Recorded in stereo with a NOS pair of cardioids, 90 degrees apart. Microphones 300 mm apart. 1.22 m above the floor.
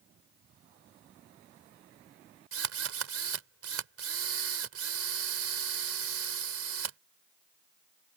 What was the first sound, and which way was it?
A drill, 50° right.